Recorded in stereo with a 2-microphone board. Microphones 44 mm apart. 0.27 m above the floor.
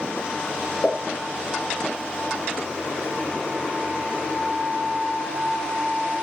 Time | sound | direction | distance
0.8 | a pop | 30° left (ahead or behind) | 0.7 m